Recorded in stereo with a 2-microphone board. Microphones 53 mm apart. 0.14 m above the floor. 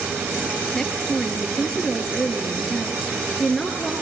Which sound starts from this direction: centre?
A woman speaking, at 0.7 s.